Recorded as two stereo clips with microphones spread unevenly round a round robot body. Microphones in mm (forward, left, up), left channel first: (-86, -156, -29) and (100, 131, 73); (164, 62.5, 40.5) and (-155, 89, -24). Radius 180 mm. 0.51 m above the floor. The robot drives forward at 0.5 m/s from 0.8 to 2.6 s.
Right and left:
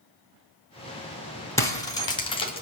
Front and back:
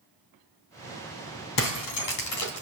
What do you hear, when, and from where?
1.6 s breaking glass: 45° right, 2.5 m; by 2.6 s 55° right, 2.5 m